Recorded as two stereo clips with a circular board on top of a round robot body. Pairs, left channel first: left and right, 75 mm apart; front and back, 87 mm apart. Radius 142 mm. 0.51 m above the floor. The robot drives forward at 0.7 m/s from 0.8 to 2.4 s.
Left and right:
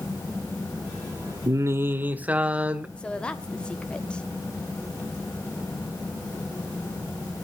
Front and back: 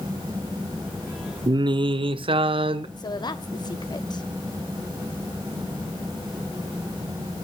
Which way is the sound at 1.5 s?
135° right.